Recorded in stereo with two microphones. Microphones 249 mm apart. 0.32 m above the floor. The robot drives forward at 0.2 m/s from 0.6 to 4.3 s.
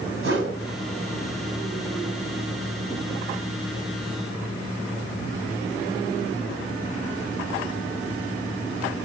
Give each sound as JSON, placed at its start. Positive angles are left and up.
{"t": 0.2, "sound": "a whoosh", "side_deg": -55, "distance_m": 2.0}